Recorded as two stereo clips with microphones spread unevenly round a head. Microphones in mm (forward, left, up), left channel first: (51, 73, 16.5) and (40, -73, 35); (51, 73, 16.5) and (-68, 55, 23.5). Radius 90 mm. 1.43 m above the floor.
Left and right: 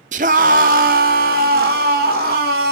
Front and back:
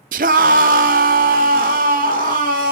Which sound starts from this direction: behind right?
A scream, at 0.1 s.